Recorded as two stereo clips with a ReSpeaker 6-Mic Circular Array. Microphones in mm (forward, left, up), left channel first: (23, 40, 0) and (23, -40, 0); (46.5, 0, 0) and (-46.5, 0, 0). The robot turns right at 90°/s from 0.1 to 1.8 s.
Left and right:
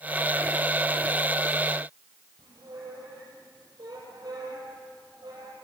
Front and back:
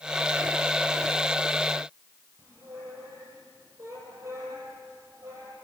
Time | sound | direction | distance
2.4 | a squeak | 120° right | 7.5 m